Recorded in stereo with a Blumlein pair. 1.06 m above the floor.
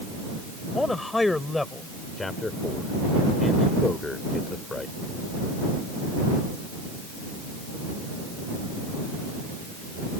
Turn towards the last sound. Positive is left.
turn(degrees=10)